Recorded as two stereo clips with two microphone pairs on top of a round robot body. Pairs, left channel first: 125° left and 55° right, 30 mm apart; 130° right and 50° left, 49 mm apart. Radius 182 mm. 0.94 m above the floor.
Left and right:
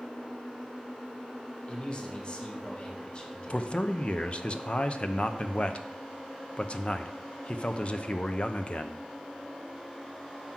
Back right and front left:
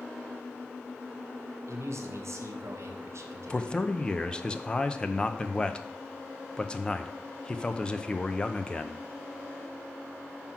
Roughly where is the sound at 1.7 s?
Ahead left.